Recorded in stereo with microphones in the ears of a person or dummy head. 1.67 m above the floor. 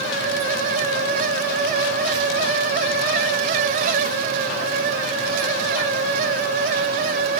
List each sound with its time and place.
Only background noise.